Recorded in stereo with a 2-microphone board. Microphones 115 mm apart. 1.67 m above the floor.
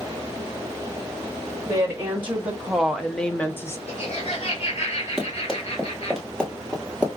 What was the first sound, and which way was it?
A woman speaking, 15° right (ahead or behind).